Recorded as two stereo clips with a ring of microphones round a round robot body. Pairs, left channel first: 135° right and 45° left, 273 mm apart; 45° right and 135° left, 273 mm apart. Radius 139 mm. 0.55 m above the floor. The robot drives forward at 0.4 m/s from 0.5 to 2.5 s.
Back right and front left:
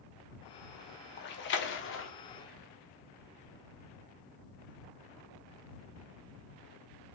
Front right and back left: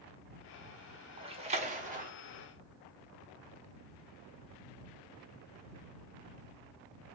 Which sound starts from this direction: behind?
A splash, at 1.2 s.